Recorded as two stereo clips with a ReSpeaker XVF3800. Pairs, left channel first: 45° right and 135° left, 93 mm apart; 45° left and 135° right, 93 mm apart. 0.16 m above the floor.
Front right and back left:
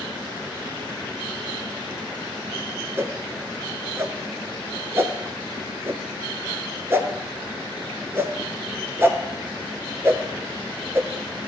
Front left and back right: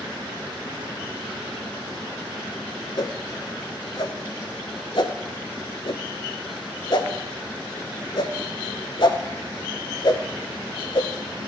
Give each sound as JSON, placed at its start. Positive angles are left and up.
{"t": 3.0, "sound": "a whoosh", "azimuth_deg": 75, "distance_m": 0.5}